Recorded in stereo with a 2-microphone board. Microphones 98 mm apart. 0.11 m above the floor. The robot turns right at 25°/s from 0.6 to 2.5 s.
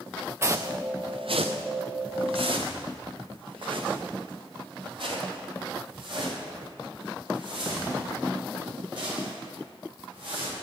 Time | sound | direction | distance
0.4 | footsteps | 25° right (ahead or behind) | 0.6 m